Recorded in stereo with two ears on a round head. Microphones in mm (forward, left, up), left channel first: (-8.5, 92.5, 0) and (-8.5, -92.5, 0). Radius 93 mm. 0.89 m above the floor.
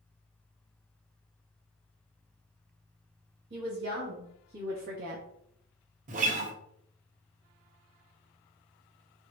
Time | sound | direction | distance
3.5 | a woman speaking | 50° right (ahead or behind) | 1.7 m
6.1 | a guitar | 40° right (ahead or behind) | 0.9 m